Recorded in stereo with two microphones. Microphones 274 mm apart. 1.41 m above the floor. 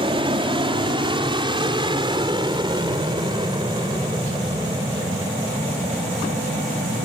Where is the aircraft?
20° right (ahead or behind); by 7.1 s 15° right (ahead or behind).